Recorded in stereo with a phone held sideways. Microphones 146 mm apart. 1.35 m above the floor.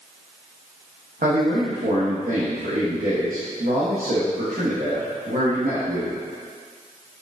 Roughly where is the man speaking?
Right.